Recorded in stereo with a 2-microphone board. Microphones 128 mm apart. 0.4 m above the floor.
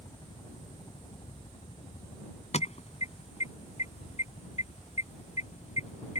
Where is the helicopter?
35° left (ahead or behind); by 6.2 s 65° left (ahead or behind).